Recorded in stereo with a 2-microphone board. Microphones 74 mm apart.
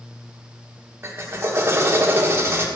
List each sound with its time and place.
1.0 s a drill: 35° right (ahead or behind), 1.5 m